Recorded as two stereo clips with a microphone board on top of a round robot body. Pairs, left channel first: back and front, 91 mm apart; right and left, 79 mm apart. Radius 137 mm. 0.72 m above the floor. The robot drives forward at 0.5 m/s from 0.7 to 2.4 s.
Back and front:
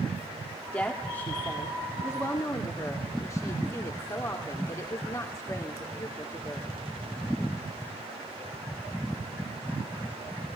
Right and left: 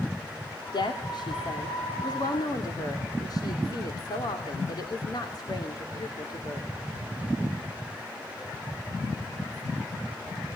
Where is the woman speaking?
105° right, 2.5 m; by 6.7 s 125° right, 3 m.